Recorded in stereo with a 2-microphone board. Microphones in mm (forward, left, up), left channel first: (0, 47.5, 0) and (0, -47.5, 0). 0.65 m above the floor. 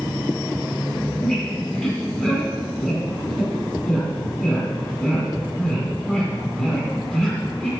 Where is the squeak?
10° left (ahead or behind), 5 m.